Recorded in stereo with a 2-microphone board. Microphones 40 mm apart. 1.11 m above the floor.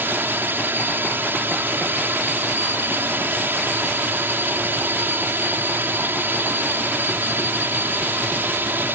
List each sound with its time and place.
0.0 s a drone: 70° right (ahead or behind)